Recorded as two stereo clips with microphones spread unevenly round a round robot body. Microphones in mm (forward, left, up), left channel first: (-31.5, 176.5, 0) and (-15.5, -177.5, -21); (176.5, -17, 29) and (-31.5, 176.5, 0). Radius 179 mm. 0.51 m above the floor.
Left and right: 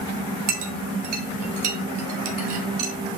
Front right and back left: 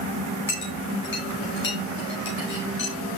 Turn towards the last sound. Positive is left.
turn(degrees=-105)